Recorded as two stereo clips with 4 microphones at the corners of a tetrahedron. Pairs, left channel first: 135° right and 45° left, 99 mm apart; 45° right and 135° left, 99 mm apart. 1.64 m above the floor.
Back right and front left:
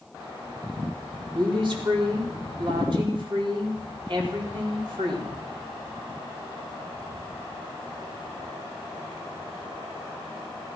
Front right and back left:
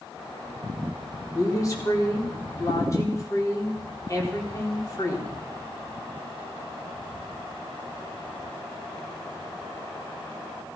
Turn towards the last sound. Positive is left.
turn(degrees=10)